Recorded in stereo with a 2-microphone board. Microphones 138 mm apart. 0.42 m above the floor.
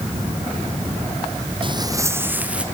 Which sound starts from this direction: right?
Footsteps, at 1.6 s.